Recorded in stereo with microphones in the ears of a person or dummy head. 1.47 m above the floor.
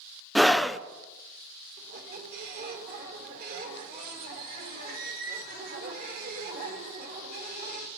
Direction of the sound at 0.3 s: Centre (ahead or behind).